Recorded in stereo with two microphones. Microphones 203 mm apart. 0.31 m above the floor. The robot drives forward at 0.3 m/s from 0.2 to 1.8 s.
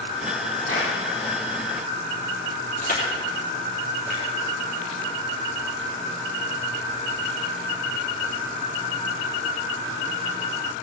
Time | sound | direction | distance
0.7 | a clap | 85° right | 6 m
2.8 | crushing | 45° left (ahead or behind) | 3.5 m